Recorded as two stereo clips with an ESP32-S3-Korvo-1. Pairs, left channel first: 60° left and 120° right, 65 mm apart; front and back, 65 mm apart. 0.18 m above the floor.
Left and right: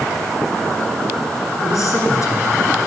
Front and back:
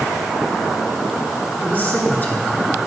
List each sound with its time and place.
1.6 s a man speaking: 55° left, 2 m